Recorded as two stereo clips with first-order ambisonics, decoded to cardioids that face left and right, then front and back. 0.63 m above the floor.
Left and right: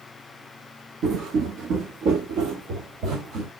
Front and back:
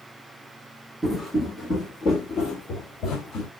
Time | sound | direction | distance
1.0 | footsteps | 105° right | 0.7 m